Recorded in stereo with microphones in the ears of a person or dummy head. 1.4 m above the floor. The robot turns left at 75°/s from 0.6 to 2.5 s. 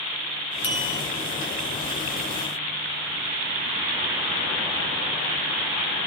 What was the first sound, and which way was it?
A bell, 25° left (ahead or behind).